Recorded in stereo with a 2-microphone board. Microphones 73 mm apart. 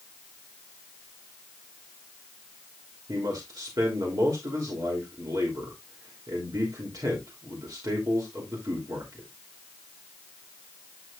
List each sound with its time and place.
3.1 s a man speaking: 60° right (ahead or behind), 3 m